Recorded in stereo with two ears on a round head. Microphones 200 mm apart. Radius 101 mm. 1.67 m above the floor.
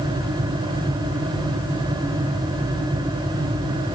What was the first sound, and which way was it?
Only background noise.